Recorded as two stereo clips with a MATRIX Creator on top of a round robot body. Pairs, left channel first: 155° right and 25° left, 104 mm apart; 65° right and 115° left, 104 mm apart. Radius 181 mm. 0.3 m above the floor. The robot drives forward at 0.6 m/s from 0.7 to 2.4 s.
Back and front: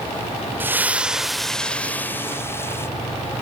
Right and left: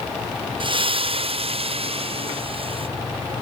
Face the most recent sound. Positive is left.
turn(degrees=135)